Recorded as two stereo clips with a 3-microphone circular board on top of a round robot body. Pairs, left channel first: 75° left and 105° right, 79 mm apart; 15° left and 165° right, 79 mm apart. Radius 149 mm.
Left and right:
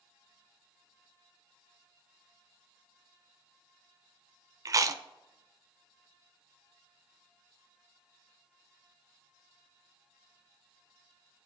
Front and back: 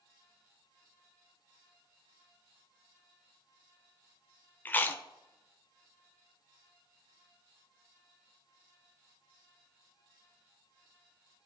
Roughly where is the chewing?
Ahead right.